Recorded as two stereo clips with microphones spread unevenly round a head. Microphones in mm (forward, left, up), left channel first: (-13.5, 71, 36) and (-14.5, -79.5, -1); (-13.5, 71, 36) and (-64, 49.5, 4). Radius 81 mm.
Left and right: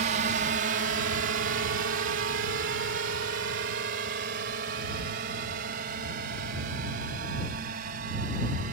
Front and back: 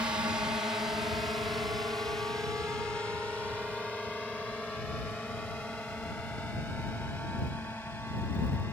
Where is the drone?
105° right; by 8.7 s 50° right.